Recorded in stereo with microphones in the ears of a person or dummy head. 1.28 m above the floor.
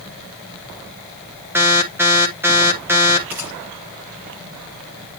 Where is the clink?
No clink in this recording.